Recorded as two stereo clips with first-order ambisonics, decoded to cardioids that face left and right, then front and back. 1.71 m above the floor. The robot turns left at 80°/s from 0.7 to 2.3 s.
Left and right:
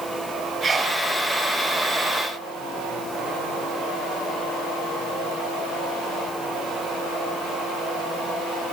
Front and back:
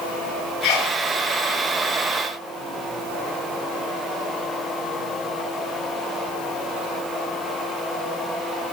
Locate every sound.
0.6 s a sneeze: 10° right, 7 m; by 1.0 s 35° right, 7 m